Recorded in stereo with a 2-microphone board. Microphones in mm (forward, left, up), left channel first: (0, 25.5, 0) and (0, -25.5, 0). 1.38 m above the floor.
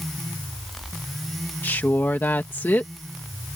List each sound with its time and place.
1.6 s a woman speaking: 40° left (ahead or behind)